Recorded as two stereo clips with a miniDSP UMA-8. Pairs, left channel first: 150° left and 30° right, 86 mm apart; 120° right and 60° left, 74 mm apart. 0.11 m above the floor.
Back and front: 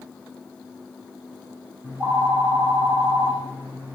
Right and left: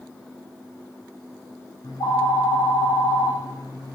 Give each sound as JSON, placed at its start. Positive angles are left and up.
{"t": 1.8, "sound": "a phone ringing", "azimuth_deg": -100, "distance_m": 3.5}